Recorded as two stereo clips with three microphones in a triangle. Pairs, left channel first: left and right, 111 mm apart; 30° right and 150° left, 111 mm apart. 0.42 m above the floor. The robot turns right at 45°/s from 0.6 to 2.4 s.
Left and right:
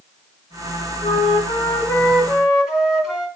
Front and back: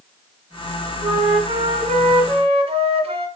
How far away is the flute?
About 1.5 m.